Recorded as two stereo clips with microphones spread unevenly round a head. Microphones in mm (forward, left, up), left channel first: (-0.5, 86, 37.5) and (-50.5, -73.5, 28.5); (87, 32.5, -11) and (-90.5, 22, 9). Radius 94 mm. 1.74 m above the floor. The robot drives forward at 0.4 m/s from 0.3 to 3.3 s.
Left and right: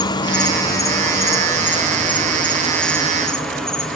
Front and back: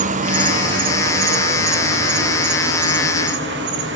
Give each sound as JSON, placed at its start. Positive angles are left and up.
{"t": 0.0, "sound": "an insect", "azimuth_deg": 135, "distance_m": 1.2}